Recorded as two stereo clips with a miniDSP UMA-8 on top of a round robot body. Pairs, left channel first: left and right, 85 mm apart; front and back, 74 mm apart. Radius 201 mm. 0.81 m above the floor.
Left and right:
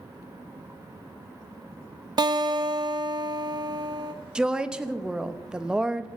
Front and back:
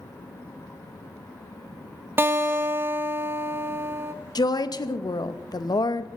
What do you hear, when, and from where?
2.2 s a guitar: 120° right, 1.0 m
4.3 s a woman speaking: 10° right, 1.0 m